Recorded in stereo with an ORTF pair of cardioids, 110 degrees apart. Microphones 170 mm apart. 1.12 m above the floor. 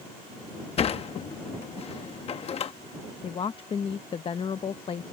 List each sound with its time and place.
0.8 s a sliding door: 40° left
3.2 s a woman speaking: 30° left